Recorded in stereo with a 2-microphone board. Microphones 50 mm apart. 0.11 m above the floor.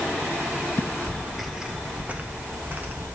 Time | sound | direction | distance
0.8 | footsteps | 50° left (ahead or behind) | 0.6 m